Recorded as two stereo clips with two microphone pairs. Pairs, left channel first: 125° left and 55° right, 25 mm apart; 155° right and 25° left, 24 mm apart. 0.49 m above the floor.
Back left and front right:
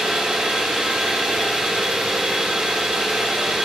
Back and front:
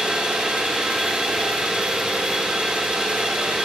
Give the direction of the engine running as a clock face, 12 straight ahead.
12 o'clock.